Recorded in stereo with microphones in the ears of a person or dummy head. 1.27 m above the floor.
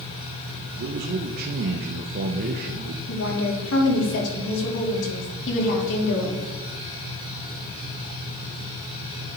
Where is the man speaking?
50° right (ahead or behind), 0.6 m.